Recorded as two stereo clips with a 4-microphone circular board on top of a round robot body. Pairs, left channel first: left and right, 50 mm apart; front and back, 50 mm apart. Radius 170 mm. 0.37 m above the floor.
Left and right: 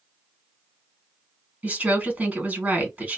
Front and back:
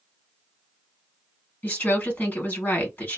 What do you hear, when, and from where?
1.6 s a woman speaking: 45° right, 1.9 m